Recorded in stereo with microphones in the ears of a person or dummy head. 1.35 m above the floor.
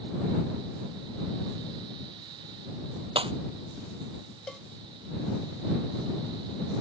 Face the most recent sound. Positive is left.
turn(degrees=5)  # may be behind; listen again after turning